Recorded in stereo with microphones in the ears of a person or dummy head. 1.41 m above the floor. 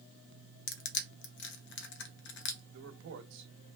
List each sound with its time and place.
0.7 s crushing: 60° left (ahead or behind), 0.7 m
2.7 s a man speaking: 70° right (ahead or behind), 0.9 m